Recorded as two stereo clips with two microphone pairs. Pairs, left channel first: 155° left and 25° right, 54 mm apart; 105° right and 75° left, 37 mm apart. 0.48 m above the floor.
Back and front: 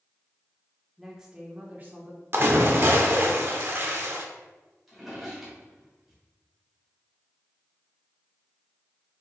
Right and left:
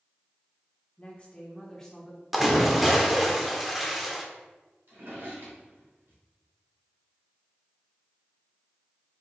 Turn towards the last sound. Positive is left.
turn(degrees=65)